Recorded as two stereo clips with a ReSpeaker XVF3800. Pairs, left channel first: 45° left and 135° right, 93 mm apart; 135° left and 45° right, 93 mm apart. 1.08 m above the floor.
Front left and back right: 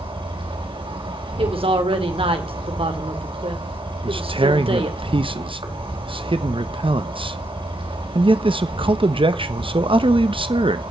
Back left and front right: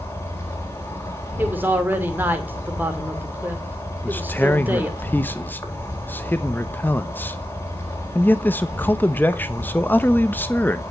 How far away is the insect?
About 4 m.